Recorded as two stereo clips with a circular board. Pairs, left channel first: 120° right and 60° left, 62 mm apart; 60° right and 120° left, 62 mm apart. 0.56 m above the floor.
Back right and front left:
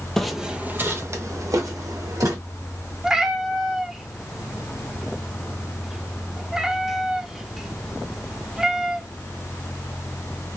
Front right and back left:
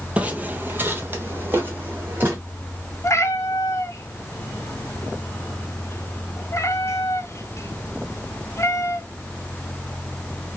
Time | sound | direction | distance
0.2 | footsteps | 165° left | 0.6 m
3.0 | a cat meowing | 20° right | 0.5 m